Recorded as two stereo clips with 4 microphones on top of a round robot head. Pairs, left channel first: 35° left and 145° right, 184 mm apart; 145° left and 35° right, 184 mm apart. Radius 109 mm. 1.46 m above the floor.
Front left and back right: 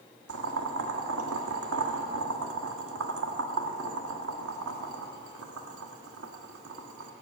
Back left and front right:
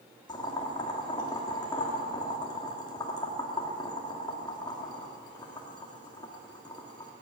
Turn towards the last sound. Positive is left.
turn(degrees=-150)